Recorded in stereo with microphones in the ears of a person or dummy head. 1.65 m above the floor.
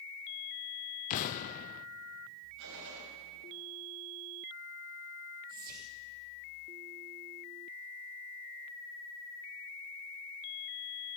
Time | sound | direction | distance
1.1 | an explosion | 45° left (ahead or behind) | 0.5 m
2.6 | a gunshot | 65° right (ahead or behind) | 5 m
5.5 | whispering | 50° right (ahead or behind) | 1.3 m